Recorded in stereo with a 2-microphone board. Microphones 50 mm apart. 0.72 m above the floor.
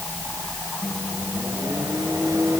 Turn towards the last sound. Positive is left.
turn(degrees=-75)  # may be behind; listen again after turning